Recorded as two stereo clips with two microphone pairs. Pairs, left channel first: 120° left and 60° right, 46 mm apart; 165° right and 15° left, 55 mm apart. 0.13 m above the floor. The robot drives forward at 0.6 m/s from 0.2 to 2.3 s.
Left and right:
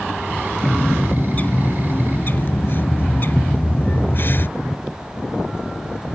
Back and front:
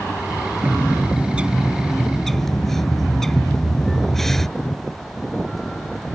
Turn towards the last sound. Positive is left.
turn(degrees=115)